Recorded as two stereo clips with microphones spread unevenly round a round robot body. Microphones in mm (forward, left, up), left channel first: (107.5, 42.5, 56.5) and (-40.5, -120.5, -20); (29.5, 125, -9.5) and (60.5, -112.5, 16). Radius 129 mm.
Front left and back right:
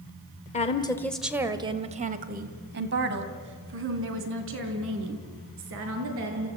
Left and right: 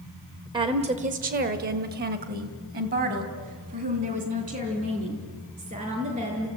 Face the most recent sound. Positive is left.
turn(degrees=-150)